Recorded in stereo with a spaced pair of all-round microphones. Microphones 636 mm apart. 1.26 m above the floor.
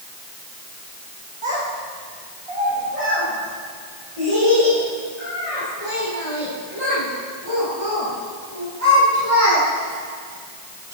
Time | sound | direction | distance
1.4 | a child speaking | 50° right (ahead or behind) | 2.5 m